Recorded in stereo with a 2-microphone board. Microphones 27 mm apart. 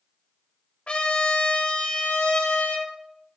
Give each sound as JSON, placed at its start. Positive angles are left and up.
{"t": 0.9, "sound": "a trumpet", "side_deg": 45, "distance_m": 1.5}